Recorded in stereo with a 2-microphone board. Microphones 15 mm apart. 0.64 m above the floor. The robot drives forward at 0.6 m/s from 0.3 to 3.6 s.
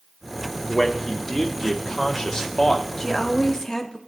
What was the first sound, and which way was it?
A man speaking, 30° left (ahead or behind).